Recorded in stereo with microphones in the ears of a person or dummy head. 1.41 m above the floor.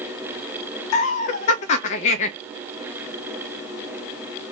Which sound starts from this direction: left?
Laughter, at 0.9 s.